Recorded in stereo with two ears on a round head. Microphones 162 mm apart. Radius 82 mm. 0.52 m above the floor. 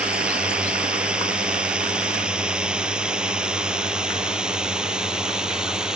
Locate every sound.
0.0 s a drone: 5° right (ahead or behind)